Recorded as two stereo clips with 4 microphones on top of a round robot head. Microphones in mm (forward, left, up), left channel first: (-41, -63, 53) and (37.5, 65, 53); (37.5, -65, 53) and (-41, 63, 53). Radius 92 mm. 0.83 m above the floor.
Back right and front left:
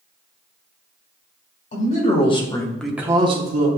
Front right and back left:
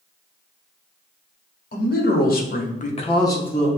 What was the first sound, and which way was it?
A man speaking, 85° right.